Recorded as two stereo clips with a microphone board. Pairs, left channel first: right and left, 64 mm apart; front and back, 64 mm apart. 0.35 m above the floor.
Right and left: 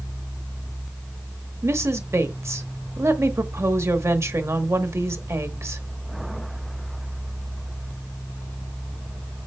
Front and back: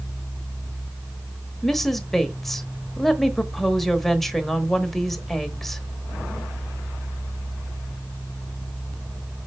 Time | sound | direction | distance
1.6 | a woman speaking | 85° left | 1.1 m